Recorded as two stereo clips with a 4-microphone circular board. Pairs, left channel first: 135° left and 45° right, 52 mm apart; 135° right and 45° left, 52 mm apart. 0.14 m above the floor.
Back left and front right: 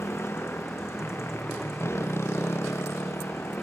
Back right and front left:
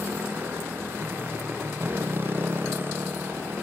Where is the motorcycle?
95° left.